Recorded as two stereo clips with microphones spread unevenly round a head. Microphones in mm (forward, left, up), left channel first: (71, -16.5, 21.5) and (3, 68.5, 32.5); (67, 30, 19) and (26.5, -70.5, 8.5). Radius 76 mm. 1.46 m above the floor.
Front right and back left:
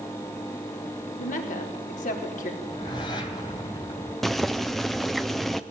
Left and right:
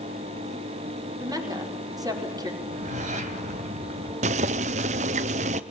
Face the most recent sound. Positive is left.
turn(degrees=-140)